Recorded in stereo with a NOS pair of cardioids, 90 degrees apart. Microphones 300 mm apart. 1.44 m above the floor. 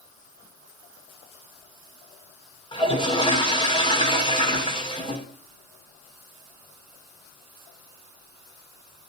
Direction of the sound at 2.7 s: 15° left.